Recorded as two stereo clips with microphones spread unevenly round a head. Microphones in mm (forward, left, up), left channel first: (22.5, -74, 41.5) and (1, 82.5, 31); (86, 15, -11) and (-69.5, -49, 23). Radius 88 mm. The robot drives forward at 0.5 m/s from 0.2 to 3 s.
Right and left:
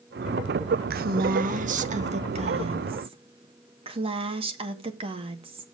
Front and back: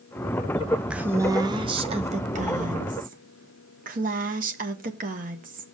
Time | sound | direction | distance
0.9 | a woman speaking | 115° left | 0.8 m